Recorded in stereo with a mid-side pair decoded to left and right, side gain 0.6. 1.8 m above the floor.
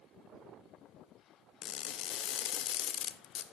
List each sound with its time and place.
1.6 s crushing: 50° left, 0.8 m